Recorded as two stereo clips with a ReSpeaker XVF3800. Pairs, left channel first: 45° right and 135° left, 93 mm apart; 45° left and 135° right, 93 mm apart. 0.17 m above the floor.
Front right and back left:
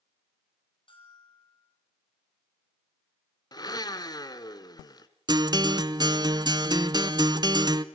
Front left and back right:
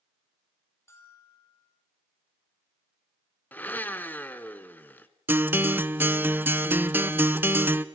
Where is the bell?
15° right, 5 m.